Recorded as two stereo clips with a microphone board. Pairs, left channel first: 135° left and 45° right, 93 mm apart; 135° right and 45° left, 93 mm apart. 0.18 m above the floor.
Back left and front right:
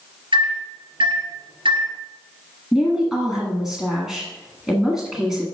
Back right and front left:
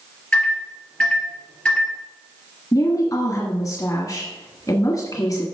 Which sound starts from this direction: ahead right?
A microwave, at 0.3 s.